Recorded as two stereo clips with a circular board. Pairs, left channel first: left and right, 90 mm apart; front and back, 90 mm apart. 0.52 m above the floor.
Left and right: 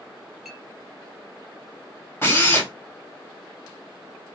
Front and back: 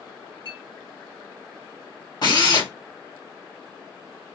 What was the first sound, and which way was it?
A clink, straight behind.